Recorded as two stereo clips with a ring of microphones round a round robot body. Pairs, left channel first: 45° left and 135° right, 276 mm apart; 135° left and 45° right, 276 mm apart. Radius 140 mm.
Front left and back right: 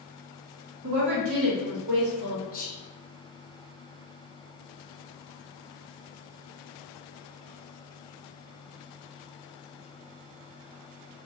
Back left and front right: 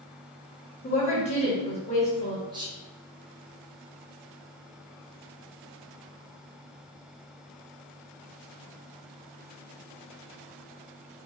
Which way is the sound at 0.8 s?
155° right.